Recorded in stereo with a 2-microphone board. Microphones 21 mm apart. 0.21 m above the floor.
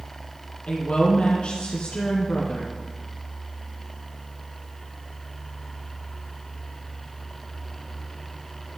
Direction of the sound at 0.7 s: 55° left (ahead or behind).